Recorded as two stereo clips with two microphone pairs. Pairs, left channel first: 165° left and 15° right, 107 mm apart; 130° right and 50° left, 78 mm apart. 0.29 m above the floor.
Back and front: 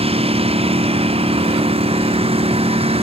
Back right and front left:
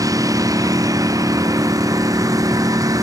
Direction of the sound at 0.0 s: 10° left.